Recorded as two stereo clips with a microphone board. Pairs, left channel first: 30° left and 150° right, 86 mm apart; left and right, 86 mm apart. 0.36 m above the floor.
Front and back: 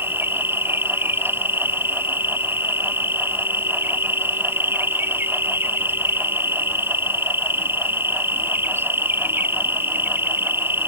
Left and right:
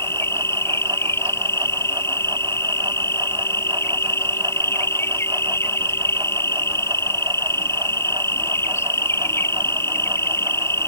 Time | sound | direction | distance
0.0 | an insect | 145° left | ?